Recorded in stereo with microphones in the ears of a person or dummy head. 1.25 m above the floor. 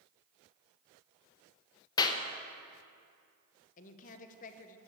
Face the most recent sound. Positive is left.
turn(degrees=40)  # may be behind; listen again after turning